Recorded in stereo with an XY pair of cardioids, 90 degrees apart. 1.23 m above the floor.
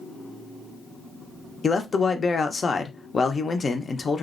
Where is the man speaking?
35° left, 0.6 m.